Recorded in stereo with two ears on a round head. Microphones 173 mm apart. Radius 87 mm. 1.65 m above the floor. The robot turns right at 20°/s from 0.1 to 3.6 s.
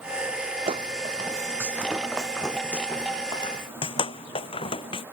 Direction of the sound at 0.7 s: 30° right (ahead or behind).